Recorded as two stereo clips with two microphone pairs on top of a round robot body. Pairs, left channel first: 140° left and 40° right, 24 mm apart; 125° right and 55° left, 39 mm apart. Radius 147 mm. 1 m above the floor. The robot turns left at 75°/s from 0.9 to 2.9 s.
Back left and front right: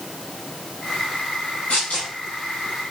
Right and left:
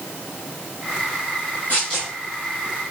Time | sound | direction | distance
1.7 | tearing paper | straight behind | 0.5 m